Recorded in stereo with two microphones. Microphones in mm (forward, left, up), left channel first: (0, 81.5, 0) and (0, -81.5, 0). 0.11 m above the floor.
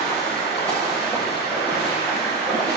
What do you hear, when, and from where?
0.0 s running water: 5° left (ahead or behind), 6.5 m